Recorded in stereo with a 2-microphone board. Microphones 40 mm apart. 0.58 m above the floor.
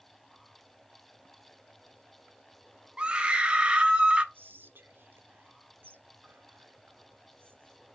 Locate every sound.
3.0 s a scream: 25° right (ahead or behind), 0.7 m
4.3 s whispering: 60° right (ahead or behind), 1.1 m